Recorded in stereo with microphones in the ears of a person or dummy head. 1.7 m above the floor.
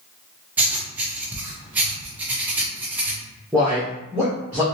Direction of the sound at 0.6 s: 10° right (ahead or behind).